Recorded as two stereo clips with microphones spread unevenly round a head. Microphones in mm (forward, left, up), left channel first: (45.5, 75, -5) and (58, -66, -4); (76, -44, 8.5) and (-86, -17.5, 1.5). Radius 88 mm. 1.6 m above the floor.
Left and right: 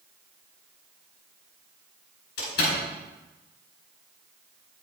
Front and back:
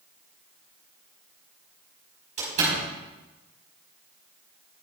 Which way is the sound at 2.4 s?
115° left.